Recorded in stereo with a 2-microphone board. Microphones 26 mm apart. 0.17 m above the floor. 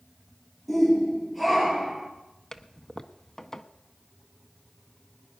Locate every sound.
0.7 s a shout: centre (ahead or behind), 4 m; by 2.1 s 10° right (ahead or behind), 2.5 m
2.5 s a toilet flushing: 20° left (ahead or behind), 0.6 m